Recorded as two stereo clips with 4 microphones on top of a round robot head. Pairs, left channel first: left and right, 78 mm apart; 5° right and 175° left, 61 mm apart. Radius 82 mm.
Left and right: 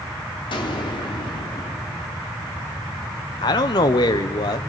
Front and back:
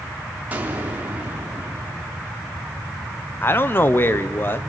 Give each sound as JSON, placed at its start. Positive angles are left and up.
{"t": 0.5, "sound": "an explosion", "azimuth_deg": 110, "distance_m": 3.5}
{"t": 3.4, "sound": "a man speaking", "azimuth_deg": 50, "distance_m": 1.3}